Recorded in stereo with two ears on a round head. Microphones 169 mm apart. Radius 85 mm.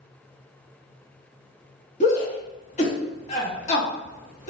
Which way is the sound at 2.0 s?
40° left (ahead or behind).